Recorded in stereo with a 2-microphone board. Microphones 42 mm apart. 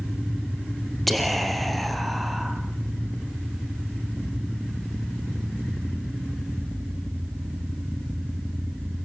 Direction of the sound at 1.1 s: 5° left (ahead or behind).